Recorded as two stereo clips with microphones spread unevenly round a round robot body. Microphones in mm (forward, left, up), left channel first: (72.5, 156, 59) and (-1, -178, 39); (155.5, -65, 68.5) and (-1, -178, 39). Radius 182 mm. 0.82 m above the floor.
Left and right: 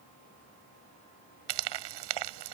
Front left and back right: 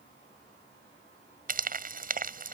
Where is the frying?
100° right.